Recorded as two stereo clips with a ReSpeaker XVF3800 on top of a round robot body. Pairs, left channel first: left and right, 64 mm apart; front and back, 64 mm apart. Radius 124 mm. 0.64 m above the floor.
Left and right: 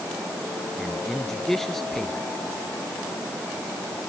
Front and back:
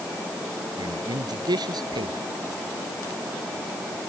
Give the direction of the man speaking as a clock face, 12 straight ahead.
6 o'clock.